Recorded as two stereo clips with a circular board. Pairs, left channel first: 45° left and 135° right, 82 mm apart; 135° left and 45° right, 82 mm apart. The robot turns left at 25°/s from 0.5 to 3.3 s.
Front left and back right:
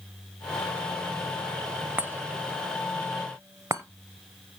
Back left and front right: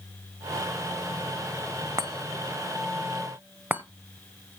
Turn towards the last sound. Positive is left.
turn(degrees=-105)